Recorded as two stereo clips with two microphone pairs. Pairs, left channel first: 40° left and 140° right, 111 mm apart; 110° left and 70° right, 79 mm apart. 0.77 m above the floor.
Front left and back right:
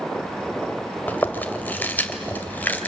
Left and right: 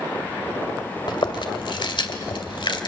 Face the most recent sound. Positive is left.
turn(degrees=110)